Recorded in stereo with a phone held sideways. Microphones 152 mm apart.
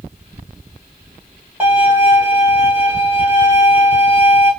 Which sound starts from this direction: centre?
A violin, at 1.6 s.